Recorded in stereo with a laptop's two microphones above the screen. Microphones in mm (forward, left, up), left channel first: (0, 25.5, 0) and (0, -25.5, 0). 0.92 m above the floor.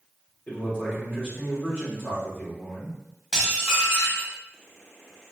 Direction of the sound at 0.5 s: 35° left (ahead or behind).